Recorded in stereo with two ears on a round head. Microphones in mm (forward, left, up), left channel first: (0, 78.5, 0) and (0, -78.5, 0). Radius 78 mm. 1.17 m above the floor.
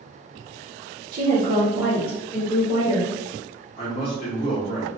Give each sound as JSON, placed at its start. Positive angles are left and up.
{"t": 1.1, "sound": "a woman speaking", "side_deg": -50, "distance_m": 0.6}
{"t": 3.8, "sound": "a man speaking", "side_deg": 30, "distance_m": 0.9}